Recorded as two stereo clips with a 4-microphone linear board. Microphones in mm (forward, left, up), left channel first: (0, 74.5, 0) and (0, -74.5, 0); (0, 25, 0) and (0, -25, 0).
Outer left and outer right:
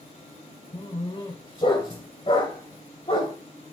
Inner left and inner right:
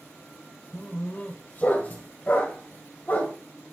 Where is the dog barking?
35° left (ahead or behind), 2 m.